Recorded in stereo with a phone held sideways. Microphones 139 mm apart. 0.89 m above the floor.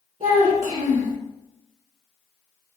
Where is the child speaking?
45° right (ahead or behind), 1.0 m.